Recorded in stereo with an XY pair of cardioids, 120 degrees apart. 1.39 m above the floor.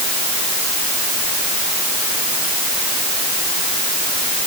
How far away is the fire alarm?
No fire alarm in this recording.